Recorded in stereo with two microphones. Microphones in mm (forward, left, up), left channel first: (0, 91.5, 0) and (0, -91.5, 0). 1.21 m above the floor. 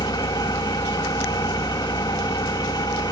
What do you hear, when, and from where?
0.0 s an engine running: 20° left (ahead or behind), 1.6 m